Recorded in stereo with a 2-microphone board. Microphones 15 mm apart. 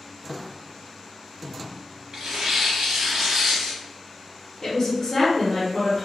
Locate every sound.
2.1 s tearing paper: 65° right (ahead or behind), 1.0 m
4.6 s a woman speaking: 20° left (ahead or behind), 0.8 m